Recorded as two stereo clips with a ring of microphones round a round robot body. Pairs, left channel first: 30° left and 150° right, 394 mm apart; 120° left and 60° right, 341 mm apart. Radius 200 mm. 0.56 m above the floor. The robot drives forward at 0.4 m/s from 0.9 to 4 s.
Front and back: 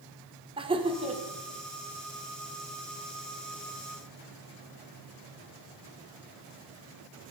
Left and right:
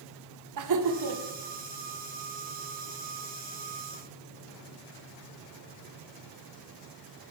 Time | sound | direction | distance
0.6 | laughter | 75° right | 1.7 m